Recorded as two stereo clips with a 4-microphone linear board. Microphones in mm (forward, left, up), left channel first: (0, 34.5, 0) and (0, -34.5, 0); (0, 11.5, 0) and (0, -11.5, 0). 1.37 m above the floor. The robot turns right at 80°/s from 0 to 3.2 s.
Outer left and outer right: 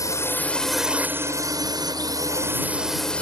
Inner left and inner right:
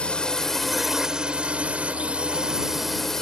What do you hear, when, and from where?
0.0 s a drone: 120° left; by 3.2 s 20° left